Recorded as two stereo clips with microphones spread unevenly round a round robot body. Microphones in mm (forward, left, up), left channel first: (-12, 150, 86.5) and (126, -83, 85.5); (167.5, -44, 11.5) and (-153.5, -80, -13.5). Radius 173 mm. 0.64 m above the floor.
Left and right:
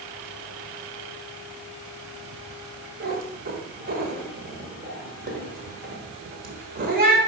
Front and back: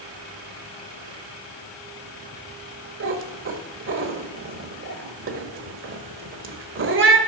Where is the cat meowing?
120° right, 1.4 m.